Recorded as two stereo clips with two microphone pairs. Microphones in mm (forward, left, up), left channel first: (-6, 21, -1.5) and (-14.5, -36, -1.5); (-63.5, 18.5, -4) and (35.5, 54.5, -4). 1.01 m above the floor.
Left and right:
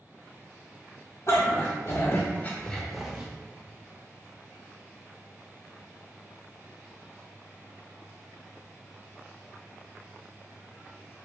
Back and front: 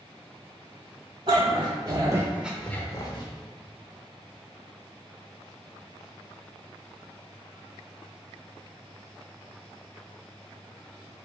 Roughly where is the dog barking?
Ahead left.